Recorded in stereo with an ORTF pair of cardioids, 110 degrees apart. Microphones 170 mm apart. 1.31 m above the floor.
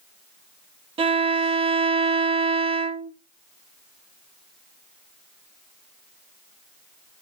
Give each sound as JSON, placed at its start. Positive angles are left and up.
{"t": 1.0, "sound": "a violin", "azimuth_deg": -35, "distance_m": 0.7}